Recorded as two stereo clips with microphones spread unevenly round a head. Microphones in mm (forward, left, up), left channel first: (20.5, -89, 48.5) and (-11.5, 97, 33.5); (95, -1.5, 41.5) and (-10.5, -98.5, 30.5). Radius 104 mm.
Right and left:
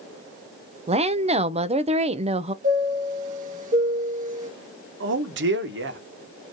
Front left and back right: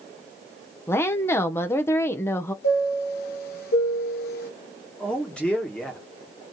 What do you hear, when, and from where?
0.9 s a woman speaking: 115° left, 0.6 m
2.6 s a chime: 45° left, 1.7 m
5.0 s a man speaking: 130° left, 1.0 m